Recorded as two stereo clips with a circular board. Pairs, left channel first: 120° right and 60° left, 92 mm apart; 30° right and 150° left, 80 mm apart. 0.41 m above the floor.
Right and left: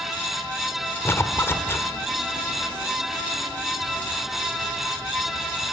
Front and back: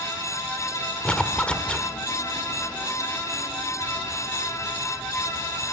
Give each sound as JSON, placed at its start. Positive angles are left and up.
{"t": 1.1, "sound": "a zipper", "azimuth_deg": -95, "distance_m": 1.5}